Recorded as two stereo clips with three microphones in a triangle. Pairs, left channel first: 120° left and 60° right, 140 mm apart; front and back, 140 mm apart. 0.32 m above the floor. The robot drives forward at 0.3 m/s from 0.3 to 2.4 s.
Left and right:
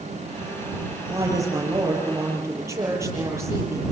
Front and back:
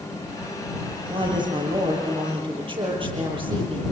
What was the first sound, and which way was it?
A woman speaking, 125° right.